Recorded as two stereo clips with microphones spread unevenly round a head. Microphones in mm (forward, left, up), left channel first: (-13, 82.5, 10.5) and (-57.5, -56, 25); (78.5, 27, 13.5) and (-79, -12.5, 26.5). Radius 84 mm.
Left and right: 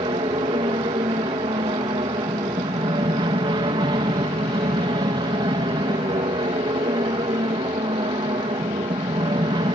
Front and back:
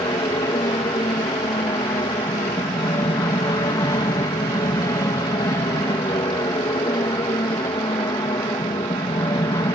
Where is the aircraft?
50° right.